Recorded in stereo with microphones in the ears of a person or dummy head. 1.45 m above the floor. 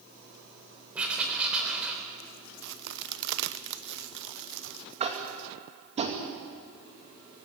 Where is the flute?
I don't hear a flute.